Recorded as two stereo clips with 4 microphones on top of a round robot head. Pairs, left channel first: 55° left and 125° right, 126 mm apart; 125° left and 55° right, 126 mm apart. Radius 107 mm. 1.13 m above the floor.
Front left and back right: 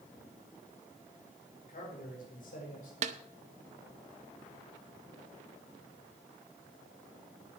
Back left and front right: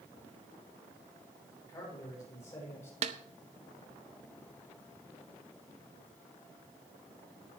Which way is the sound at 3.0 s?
90° right.